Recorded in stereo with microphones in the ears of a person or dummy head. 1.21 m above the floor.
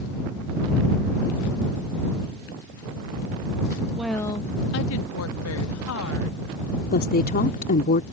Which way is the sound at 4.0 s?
5° right (ahead or behind).